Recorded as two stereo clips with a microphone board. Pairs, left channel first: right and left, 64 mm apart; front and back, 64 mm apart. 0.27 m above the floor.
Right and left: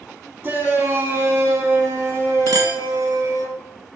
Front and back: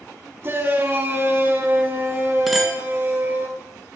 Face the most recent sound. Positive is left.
turn(degrees=90)